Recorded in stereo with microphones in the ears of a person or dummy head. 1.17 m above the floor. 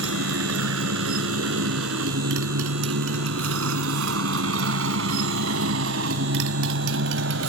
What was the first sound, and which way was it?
A motorcycle, 80° right.